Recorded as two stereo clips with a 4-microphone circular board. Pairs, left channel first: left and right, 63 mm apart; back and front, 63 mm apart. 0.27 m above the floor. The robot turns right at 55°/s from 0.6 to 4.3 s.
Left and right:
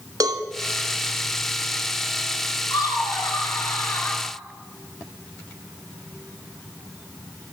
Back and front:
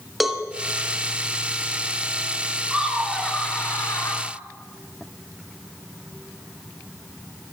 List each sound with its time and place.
0.2 s a cowbell: 90° right, 1.0 m
2.7 s laughter: 75° left, 3 m; by 4.2 s 160° left, 3 m